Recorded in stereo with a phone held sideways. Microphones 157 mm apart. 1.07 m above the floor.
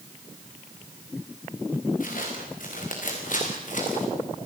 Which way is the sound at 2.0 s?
65° left (ahead or behind).